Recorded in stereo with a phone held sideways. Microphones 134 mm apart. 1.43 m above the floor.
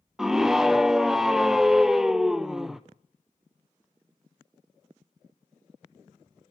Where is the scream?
Centre (ahead or behind), 0.6 m.